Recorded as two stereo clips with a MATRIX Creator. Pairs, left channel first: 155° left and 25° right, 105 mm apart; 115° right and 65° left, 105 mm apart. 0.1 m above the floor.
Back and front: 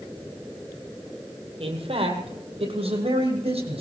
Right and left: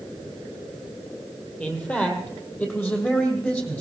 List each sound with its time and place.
1.6 s a man speaking: 35° right, 3 m; by 3.8 s 40° right, 4 m